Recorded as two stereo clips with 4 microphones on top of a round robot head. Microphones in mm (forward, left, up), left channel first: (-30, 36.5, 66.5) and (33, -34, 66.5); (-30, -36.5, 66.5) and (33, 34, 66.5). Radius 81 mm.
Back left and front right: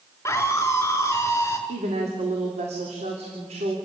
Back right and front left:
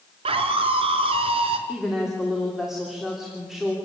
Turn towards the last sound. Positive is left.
turn(degrees=-40)